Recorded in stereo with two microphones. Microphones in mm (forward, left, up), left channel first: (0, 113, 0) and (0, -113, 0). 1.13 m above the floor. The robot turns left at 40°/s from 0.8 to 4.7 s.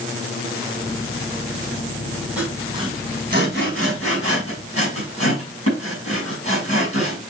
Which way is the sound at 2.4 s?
5° right (ahead or behind).